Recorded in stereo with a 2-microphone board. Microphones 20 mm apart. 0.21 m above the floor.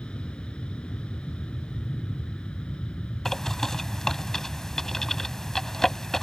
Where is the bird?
20° left (ahead or behind).